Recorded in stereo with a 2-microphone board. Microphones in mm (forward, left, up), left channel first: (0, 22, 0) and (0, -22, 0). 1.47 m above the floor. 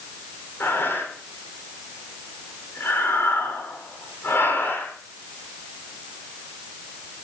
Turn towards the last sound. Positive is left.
turn(degrees=55)  # may be behind; listen again after turning